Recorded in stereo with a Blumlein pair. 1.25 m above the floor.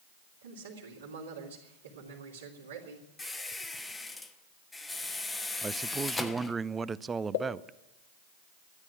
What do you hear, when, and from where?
0.4 s a man speaking: 65° right, 3 m
3.2 s a squeak: 10° left, 1.1 m
5.6 s a man speaking: 15° right, 0.5 m
7.3 s a pop: 55° left, 1.3 m